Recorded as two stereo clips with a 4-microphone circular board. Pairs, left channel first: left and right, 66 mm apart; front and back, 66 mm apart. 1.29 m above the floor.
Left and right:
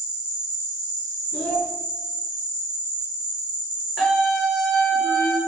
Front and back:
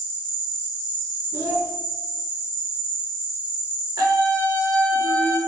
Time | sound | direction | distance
0.0 | an insect | 130° right | 1.7 m
1.3 | a child speaking | 150° left | 0.6 m
4.0 | a scream | straight behind | 1.1 m